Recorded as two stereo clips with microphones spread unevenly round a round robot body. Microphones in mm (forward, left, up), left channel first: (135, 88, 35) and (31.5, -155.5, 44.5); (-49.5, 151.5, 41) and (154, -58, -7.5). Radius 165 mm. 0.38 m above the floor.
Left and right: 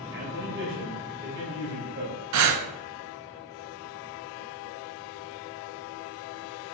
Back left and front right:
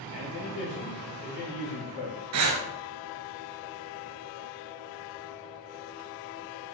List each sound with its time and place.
0.1 s a man speaking: 165° right, 2.5 m
2.3 s breathing: 95° right, 0.9 m